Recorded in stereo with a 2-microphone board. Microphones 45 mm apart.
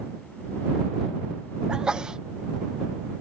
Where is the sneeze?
15° right (ahead or behind).